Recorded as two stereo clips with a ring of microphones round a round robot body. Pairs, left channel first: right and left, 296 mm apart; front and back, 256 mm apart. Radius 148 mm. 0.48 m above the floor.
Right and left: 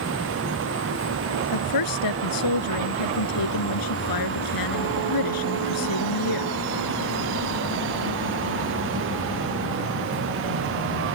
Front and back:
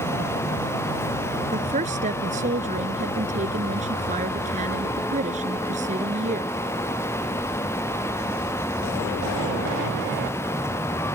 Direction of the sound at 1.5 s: 110° right.